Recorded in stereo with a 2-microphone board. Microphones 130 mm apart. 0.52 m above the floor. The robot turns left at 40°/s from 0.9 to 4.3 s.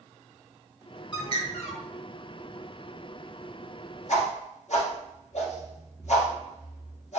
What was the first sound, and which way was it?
A bird, 40° left (ahead or behind).